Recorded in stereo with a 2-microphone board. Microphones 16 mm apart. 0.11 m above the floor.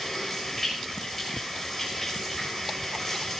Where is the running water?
10° left (ahead or behind), 6 m.